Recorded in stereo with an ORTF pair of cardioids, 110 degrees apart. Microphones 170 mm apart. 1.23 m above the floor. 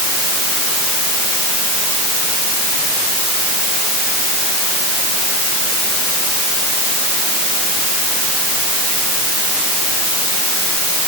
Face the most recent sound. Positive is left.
No sound to turn to.